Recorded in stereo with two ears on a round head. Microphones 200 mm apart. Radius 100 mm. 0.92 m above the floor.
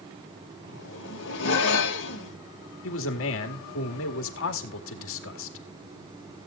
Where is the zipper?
60° left (ahead or behind), 2.5 m.